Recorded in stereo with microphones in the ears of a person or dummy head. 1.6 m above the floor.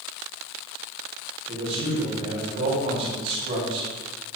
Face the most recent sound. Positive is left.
turn(degrees=-35)  # may be behind; listen again after turning